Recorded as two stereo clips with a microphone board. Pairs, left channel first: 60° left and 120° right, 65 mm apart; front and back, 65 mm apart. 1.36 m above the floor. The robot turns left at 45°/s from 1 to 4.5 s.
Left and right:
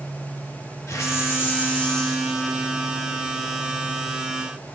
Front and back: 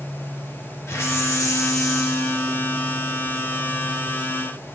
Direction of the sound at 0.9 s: 35° left.